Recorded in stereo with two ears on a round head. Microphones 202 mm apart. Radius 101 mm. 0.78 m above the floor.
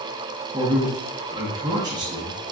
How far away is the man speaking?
About 0.8 m.